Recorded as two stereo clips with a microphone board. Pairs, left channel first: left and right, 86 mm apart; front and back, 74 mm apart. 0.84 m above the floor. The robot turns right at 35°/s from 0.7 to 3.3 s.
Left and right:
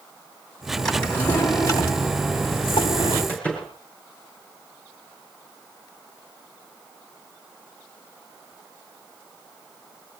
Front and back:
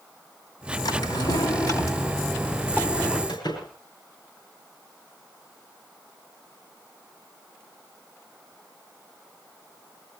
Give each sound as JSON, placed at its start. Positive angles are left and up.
{"t": 0.8, "sound": "a drawer", "azimuth_deg": 5, "distance_m": 3.0}
{"t": 3.3, "sound": "a door slam", "azimuth_deg": 15, "distance_m": 8.0}